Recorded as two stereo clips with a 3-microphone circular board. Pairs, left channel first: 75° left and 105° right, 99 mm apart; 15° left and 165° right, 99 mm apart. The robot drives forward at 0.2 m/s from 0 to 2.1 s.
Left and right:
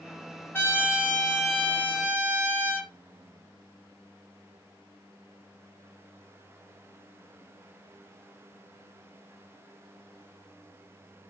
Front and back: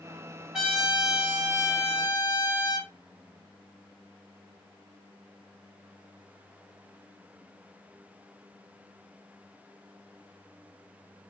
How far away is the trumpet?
About 1.4 m.